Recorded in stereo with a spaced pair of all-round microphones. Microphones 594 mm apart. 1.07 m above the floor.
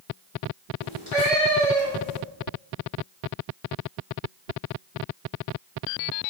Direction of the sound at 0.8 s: 70° right (ahead or behind).